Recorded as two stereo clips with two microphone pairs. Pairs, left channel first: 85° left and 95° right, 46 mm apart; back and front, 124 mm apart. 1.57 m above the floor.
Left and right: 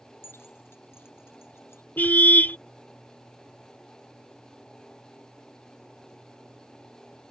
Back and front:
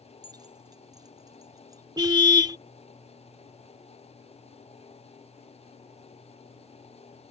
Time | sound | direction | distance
0.2 | keys jangling | 55° left | ?
2.0 | a car horn | 45° left | ?